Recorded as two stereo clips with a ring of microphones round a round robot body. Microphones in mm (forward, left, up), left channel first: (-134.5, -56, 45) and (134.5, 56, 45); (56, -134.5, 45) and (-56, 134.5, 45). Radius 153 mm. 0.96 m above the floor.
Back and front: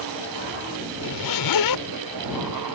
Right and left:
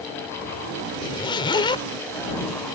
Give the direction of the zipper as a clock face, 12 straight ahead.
5 o'clock.